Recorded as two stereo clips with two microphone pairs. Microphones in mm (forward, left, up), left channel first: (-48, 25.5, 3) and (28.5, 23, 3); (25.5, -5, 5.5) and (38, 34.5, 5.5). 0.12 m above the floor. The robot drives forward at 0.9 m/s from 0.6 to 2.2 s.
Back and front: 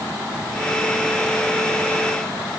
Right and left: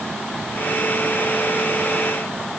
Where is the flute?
No flute in this recording.